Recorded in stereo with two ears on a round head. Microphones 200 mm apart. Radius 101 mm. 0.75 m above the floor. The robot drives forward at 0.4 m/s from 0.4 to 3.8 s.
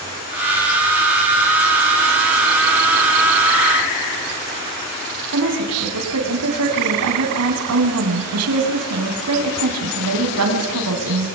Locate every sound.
5.3 s a woman speaking: 80° right, 5 m